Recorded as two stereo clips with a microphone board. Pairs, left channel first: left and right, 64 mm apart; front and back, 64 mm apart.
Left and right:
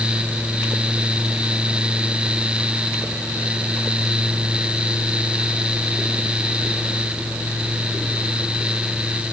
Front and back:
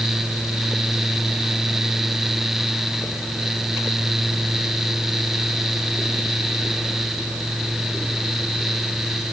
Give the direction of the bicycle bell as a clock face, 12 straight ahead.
No bicycle bell in this recording.